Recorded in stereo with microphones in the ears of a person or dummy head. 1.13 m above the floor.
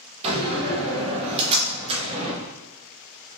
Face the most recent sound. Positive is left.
turn(degrees=-30)  # may be behind; listen again after turning